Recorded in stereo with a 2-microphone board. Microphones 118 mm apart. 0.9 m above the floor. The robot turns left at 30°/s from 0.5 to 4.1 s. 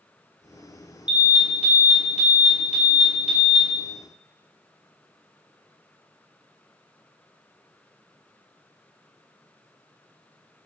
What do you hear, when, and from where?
1.1 s an alarm: 135° left, 1.3 m; by 3.6 s 55° left, 1.3 m